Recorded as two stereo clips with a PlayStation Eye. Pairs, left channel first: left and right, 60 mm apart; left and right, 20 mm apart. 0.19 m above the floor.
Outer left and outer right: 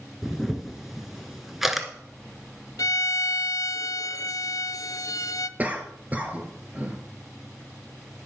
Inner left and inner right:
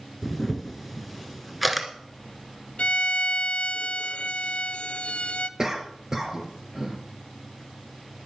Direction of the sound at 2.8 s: 80° left.